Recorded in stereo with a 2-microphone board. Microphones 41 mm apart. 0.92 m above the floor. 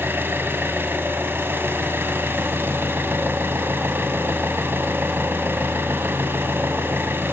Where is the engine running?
65° right (ahead or behind), 1.7 m.